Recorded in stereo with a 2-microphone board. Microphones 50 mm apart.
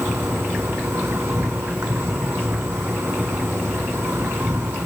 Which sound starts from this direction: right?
An insect, at 0.0 s.